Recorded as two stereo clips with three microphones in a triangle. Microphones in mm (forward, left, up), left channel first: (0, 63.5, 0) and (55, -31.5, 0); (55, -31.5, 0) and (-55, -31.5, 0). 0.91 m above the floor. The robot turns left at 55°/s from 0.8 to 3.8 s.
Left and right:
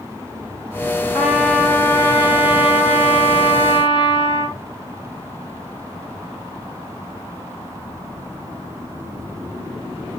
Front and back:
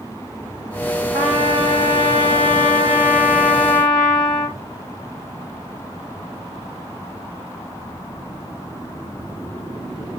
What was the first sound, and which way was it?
A trumpet, 140° right.